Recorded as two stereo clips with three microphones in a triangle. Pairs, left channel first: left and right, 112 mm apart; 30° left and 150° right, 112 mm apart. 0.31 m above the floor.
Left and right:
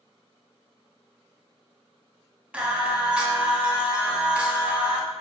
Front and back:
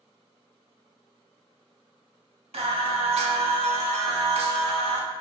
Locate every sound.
2.5 s singing: 170° right, 0.5 m